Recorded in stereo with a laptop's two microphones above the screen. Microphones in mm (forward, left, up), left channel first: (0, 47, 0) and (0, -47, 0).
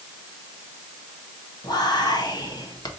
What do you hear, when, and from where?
1.6 s whispering: 45° left (ahead or behind), 0.8 m